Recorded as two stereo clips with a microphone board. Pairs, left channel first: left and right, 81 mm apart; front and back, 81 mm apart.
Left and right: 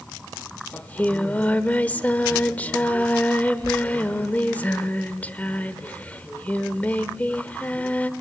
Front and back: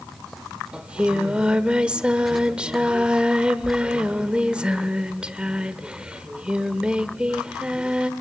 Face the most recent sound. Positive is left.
turn(degrees=125)